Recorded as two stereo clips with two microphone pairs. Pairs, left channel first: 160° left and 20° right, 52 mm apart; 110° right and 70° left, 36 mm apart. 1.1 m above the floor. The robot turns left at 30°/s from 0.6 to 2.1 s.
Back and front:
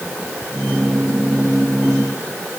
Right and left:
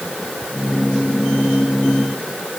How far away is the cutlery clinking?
No cutlery clinking in this recording.